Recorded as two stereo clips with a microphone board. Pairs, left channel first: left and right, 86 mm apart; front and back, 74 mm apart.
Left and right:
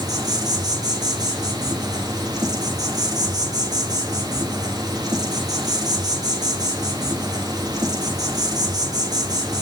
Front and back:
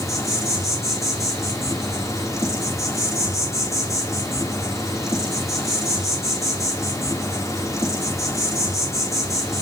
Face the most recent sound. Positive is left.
turn(degrees=-45)